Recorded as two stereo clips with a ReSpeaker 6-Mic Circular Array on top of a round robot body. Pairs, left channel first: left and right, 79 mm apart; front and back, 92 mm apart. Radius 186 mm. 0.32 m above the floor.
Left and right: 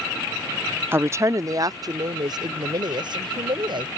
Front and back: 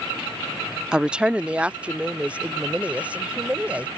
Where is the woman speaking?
105° right.